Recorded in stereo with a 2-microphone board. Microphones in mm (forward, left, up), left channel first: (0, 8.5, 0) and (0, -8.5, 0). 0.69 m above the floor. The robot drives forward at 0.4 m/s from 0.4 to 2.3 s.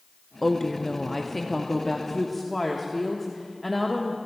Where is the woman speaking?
15° left (ahead or behind), 0.6 m; by 4.2 s 10° left (ahead or behind), 1.1 m.